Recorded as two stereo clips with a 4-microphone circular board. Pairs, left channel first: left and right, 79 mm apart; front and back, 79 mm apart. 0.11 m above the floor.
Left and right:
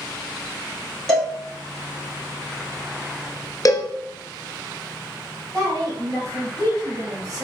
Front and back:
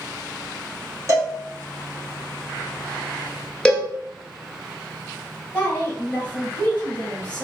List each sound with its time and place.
1.1 s a cowbell: 170° left, 1.2 m
3.6 s a cowbell: 75° left, 0.6 m
5.5 s a woman speaking: 85° right, 1.6 m